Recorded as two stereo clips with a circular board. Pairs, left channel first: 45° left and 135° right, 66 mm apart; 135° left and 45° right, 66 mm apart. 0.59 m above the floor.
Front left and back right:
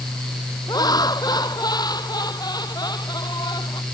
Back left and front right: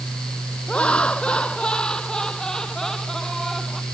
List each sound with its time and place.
0.7 s laughter: 60° left; by 3.8 s 45° left